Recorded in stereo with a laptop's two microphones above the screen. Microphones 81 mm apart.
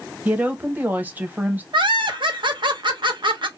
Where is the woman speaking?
20° right (ahead or behind), 0.9 m.